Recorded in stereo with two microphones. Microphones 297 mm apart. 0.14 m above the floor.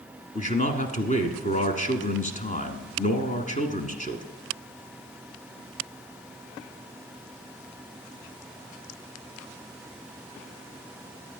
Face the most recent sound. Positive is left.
turn(degrees=25)  # may be behind; listen again after turning